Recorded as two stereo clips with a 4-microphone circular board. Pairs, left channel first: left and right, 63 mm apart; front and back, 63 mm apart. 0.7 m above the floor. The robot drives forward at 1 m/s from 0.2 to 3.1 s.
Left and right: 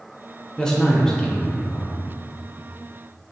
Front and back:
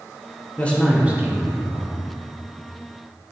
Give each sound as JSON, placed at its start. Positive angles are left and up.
{"t": 0.6, "sound": "a man speaking", "azimuth_deg": 20, "distance_m": 0.6}